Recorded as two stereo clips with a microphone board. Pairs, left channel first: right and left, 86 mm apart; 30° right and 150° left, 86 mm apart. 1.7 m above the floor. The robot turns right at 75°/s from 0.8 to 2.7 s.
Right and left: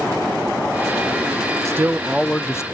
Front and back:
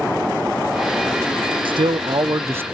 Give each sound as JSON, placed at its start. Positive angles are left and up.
{"t": 1.6, "sound": "a man speaking", "azimuth_deg": 145, "distance_m": 0.5}